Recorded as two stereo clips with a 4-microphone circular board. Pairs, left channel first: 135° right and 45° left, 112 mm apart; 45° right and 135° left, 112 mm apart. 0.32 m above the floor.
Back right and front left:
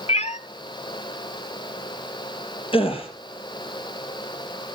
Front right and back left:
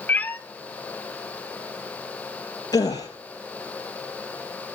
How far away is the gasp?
About 4 m.